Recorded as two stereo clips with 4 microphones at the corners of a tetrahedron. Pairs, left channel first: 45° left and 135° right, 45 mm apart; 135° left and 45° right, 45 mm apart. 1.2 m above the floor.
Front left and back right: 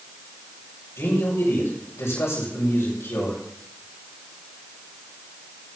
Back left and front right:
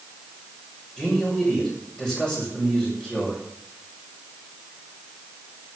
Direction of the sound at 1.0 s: 60° left.